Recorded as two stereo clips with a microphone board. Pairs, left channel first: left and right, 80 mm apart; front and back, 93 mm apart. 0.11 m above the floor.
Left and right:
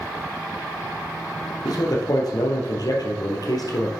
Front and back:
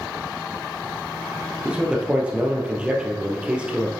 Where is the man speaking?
105° left, 2 m.